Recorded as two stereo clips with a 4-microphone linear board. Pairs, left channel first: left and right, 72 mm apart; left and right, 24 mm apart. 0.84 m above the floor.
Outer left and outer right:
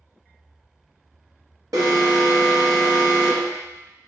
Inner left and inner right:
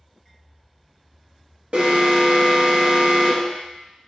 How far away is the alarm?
About 1.2 m.